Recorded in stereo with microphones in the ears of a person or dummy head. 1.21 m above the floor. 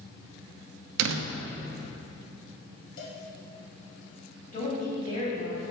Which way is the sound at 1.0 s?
70° right (ahead or behind).